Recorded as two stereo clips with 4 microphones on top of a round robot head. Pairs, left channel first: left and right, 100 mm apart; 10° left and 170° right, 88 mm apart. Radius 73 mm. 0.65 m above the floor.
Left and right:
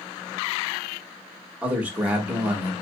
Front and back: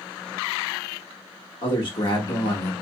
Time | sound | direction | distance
1.6 | a man speaking | 15° right | 1.3 m